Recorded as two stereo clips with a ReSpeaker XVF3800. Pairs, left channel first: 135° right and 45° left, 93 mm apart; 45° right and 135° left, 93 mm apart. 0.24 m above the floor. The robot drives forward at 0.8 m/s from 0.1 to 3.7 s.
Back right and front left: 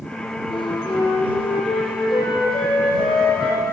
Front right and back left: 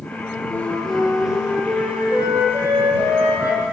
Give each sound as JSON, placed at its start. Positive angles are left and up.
{"t": 0.5, "sound": "a flute", "azimuth_deg": -115, "distance_m": 1.0}